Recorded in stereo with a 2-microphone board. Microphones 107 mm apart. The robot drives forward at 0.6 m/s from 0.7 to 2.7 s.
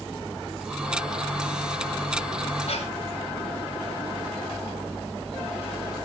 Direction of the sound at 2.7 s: 75° left (ahead or behind).